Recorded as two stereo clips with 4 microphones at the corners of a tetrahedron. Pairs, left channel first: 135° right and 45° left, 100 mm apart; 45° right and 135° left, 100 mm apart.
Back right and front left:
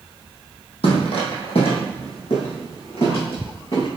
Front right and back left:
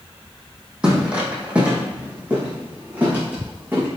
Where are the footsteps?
145° right, 3 m; by 3.9 s 155° right, 5.5 m.